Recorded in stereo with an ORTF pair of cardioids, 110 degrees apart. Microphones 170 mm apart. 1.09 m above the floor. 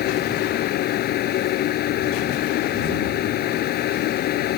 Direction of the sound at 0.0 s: 70° left.